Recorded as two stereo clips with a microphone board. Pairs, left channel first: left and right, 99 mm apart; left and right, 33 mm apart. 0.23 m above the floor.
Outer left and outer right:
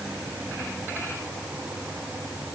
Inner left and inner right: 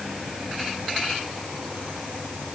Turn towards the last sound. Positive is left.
No sound to turn to.